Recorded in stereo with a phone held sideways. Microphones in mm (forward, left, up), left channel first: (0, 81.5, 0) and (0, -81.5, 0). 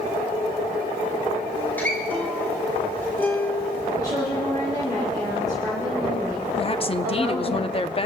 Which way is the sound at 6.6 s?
35° left (ahead or behind).